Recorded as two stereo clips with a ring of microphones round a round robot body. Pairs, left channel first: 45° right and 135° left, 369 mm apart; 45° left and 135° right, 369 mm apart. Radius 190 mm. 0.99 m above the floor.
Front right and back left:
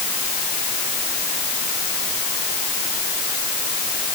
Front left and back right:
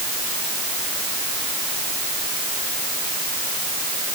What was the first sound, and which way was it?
Only background noise.